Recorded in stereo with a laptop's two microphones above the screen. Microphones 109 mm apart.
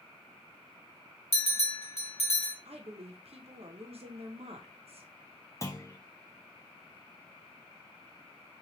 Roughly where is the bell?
Left.